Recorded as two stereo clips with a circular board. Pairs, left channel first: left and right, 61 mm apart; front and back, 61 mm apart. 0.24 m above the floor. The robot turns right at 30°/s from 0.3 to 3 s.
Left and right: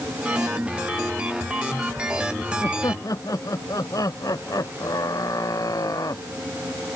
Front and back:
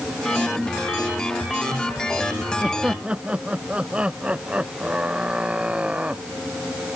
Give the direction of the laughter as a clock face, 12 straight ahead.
9 o'clock.